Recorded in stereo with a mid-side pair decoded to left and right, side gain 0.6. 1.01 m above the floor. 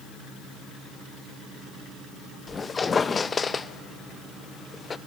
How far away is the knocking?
I don't hear knocking.